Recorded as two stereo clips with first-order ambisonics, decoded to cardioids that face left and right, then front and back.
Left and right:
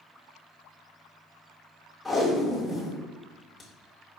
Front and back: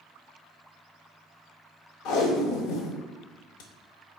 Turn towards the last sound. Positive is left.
turn(degrees=0)